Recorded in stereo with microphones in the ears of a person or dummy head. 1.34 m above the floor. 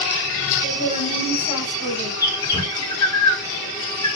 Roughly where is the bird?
Centre.